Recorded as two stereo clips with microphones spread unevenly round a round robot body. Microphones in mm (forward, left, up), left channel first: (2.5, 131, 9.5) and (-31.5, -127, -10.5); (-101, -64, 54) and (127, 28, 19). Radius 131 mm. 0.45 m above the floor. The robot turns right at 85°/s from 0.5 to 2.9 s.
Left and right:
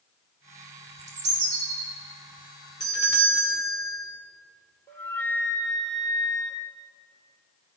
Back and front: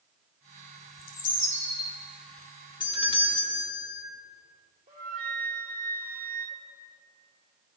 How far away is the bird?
About 3 m.